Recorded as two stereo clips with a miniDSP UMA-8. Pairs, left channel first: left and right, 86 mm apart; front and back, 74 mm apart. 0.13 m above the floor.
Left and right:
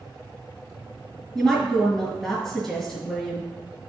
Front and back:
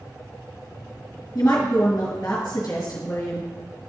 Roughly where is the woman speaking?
Ahead.